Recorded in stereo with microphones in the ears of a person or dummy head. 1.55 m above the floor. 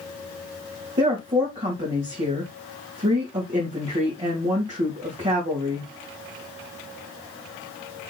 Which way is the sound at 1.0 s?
30° right (ahead or behind).